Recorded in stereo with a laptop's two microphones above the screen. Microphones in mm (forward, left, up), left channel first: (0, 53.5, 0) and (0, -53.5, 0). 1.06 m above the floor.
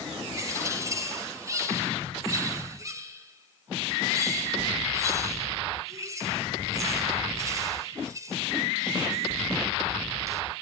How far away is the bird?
About 3 m.